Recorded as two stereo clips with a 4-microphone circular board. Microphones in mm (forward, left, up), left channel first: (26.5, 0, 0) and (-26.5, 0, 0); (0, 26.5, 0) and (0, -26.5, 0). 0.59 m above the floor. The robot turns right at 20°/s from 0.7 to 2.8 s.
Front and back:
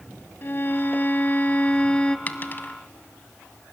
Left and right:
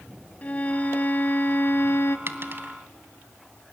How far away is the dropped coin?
About 1.0 m.